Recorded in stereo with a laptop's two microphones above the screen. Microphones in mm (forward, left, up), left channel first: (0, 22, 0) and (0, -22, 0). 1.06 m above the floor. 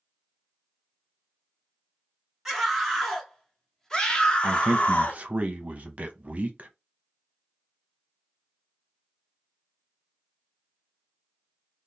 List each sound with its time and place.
2.5 s a scream: centre (ahead or behind), 1.9 m; by 5.2 s 40° left (ahead or behind), 1.1 m
4.4 s a man speaking: 40° right (ahead or behind), 0.6 m